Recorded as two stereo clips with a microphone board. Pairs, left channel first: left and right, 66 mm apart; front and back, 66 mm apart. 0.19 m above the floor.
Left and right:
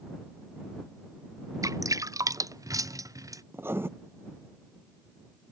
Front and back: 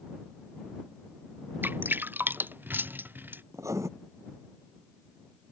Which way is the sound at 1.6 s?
120° right.